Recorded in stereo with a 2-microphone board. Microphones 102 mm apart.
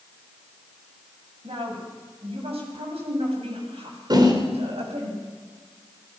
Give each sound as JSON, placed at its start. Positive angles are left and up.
{"t": 1.4, "sound": "a woman speaking", "side_deg": -70, "distance_m": 9.0}
{"t": 4.1, "sound": "a whoosh", "side_deg": -45, "distance_m": 4.0}